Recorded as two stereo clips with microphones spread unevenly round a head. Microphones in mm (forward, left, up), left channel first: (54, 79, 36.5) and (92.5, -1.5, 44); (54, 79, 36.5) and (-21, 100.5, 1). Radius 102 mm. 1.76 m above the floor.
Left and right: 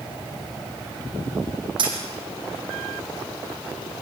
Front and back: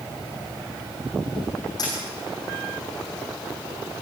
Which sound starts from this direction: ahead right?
A dropped coin, at 1.8 s.